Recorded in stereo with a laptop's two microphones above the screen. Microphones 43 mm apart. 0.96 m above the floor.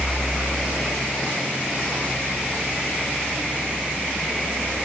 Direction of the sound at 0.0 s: 5° left (ahead or behind).